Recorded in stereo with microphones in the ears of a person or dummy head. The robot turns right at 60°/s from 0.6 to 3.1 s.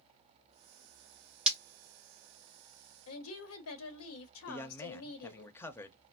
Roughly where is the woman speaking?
Left.